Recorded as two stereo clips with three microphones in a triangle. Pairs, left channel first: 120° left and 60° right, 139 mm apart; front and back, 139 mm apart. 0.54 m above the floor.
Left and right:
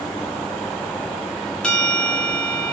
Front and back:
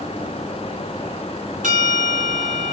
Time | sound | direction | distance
1.6 | a bell | 155° right | 1.3 m